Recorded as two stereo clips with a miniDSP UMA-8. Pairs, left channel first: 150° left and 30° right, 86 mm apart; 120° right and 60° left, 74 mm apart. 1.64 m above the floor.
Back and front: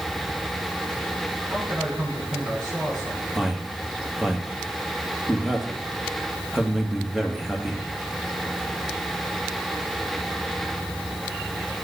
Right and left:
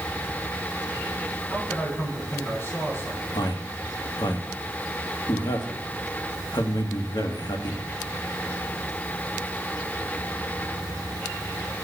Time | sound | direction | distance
1.5 | a man speaking | 60° right | 9.5 m
3.4 | a man speaking | 115° right | 2 m